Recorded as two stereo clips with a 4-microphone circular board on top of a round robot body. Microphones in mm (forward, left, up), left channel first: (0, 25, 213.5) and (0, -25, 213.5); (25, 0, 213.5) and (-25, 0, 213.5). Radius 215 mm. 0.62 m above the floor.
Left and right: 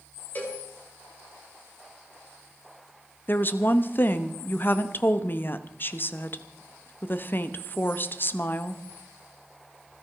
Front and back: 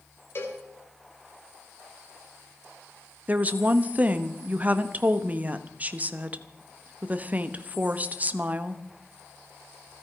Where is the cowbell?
40° left, 3.5 m.